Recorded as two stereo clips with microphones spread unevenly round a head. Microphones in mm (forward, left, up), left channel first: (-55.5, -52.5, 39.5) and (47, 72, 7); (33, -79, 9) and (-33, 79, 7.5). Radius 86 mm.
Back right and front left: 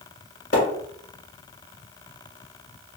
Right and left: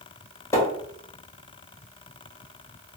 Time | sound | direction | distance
0.5 | a splash | 135° right | 1.5 m